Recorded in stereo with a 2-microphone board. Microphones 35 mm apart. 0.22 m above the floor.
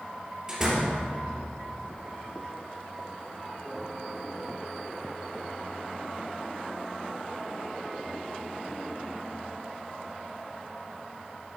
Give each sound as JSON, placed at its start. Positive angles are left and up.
{"t": 0.5, "sound": "a door slam", "side_deg": -15, "distance_m": 3.0}